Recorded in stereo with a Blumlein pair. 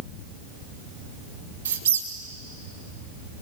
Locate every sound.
1.6 s a squeak: 65° right, 2 m